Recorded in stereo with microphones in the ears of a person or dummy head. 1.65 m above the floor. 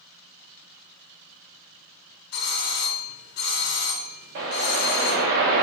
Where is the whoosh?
50° right (ahead or behind), 1.0 m.